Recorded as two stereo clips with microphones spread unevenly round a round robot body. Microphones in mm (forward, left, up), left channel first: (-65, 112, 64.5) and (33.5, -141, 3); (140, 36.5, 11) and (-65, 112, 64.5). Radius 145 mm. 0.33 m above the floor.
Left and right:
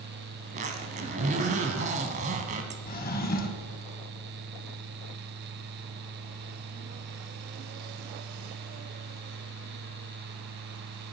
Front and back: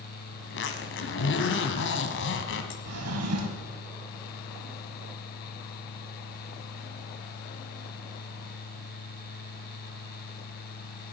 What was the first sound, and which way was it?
A zipper, 10° right.